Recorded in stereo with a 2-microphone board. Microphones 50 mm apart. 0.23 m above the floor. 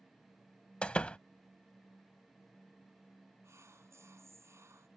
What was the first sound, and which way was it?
A door slam, 20° left (ahead or behind).